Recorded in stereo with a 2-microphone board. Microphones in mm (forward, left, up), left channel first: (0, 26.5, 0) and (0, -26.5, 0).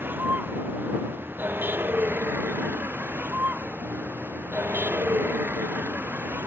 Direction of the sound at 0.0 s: 40° right (ahead or behind).